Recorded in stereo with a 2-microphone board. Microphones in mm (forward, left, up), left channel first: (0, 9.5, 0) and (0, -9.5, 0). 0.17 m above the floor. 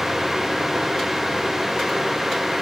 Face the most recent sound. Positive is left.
No sound to turn to.